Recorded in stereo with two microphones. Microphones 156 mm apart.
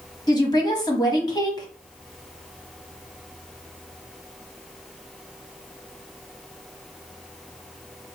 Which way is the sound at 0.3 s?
25° left (ahead or behind).